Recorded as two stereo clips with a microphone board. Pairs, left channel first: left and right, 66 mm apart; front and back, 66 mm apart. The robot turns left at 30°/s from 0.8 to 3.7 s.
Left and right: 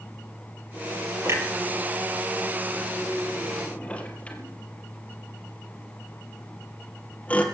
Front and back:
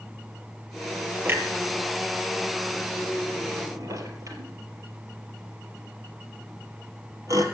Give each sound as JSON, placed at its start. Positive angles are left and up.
{"t": 1.2, "sound": "a clunk", "azimuth_deg": -130, "distance_m": 2.5}